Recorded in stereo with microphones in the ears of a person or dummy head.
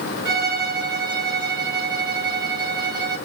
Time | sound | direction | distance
0.2 | a violin | 10° right (ahead or behind) | 2.5 m